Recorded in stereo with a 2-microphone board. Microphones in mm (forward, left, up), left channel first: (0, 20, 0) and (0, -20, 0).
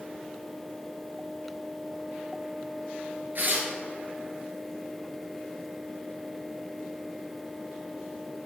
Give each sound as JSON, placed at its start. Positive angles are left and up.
{"t": 3.4, "sound": "tearing paper", "side_deg": -55, "distance_m": 2.0}